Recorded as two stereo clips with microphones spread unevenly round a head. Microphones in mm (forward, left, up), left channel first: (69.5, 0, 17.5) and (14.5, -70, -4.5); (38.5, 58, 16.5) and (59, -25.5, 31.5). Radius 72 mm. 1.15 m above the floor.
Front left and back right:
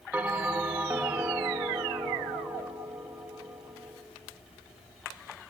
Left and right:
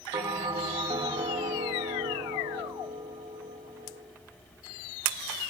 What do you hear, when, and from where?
0.1 s a bell: 50° right, 0.8 m